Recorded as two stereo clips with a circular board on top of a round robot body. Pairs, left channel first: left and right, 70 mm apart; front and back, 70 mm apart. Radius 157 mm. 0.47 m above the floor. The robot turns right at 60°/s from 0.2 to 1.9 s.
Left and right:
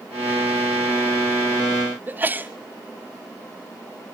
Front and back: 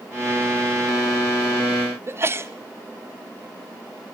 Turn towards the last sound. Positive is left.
turn(degrees=-140)